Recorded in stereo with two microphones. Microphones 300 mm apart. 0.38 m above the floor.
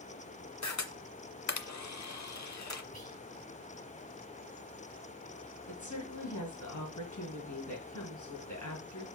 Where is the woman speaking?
75° left (ahead or behind), 3.5 m.